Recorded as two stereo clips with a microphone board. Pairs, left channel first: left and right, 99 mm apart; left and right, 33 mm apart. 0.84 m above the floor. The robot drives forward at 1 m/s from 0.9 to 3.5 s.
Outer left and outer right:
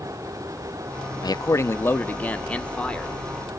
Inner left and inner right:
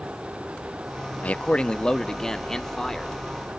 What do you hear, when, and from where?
1.2 s a man speaking: 45° left (ahead or behind), 0.5 m; by 3.1 s 10° left (ahead or behind), 2 m